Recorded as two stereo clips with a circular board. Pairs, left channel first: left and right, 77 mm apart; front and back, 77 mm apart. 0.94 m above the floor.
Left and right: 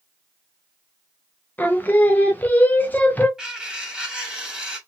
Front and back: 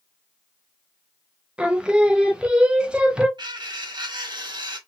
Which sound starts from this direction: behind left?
Singing, at 1.6 s.